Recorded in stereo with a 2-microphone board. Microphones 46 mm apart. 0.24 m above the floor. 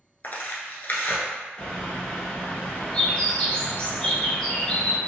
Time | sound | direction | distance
0.2 | tearing paper | 45° left (ahead or behind) | 0.6 m
1.6 | a bird | 25° left (ahead or behind) | 1.0 m